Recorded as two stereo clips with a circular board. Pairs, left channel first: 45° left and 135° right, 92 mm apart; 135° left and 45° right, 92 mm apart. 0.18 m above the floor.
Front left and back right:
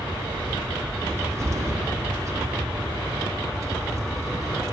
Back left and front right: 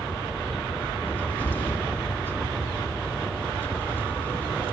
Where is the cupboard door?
170° right, 2.0 m.